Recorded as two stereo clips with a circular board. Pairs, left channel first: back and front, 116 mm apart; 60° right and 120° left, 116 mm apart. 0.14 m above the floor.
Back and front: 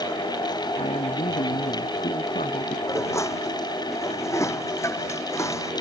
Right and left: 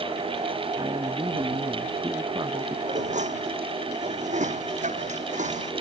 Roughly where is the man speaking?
Behind.